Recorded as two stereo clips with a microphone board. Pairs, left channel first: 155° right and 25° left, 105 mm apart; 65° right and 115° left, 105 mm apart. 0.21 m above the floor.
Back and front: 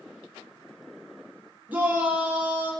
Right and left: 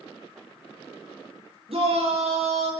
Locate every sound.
1.7 s a shout: 95° left, 6.5 m